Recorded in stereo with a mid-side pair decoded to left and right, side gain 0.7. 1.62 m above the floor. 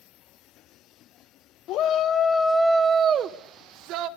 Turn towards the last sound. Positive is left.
turn(degrees=-60)